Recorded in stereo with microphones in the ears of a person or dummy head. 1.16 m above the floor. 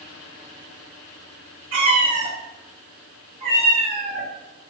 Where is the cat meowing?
40° right (ahead or behind), 1.0 m; by 4.3 s 25° right (ahead or behind), 1.4 m.